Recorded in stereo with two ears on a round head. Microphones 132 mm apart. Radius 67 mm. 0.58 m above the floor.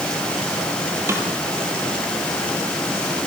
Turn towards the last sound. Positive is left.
turn(degrees=-15)  # may be behind; listen again after turning